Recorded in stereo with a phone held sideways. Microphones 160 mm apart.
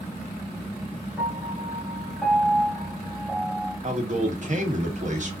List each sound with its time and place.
1.2 s a piano: 5° right (ahead or behind), 3 m
3.8 s a man speaking: 50° right (ahead or behind), 1.8 m